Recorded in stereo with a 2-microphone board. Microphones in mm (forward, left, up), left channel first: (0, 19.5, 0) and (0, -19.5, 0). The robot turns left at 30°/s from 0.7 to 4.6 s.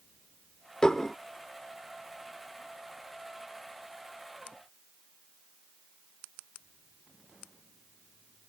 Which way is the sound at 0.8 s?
20° left (ahead or behind).